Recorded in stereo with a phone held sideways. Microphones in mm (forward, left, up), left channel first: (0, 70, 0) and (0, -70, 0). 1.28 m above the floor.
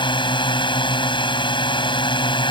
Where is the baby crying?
No baby crying in this recording.